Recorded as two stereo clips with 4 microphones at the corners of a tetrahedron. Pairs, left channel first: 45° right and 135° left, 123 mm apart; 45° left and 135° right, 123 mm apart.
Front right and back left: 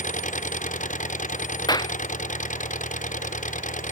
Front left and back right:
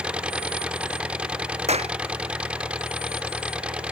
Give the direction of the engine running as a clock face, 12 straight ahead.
2 o'clock.